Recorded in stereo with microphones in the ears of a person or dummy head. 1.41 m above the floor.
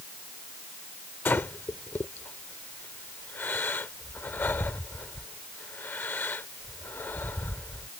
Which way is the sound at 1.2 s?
15° left (ahead or behind).